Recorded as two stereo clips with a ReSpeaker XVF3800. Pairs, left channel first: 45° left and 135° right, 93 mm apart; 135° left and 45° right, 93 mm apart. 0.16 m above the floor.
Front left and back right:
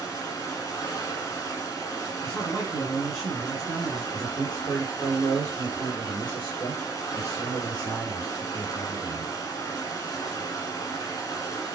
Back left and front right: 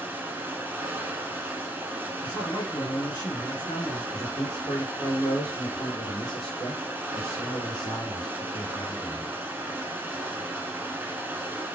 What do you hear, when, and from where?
0.0 s running water: 20° left, 1.1 m
2.2 s a man speaking: 130° left, 2.5 m
4.1 s a man speaking: 115° left, 2 m